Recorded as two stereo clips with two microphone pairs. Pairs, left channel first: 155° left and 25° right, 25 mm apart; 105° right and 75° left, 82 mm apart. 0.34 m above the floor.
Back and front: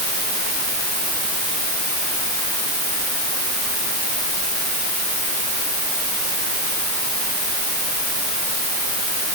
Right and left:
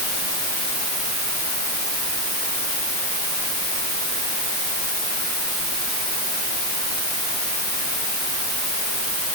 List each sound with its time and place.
Only background noise.